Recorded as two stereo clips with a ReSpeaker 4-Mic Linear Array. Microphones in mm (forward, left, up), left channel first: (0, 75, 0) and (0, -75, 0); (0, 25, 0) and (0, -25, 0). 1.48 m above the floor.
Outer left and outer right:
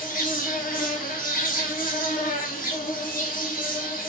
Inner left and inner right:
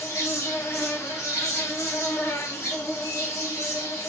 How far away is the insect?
About 1.0 m.